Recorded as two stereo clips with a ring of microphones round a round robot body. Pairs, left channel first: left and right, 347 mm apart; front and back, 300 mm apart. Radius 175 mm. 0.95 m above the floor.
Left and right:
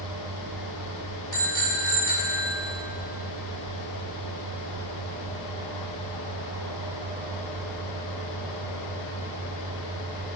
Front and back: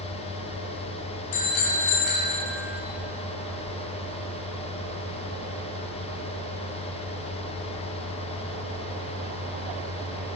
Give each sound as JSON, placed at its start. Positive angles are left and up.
{"t": 1.3, "sound": "a bicycle bell", "azimuth_deg": 10, "distance_m": 4.5}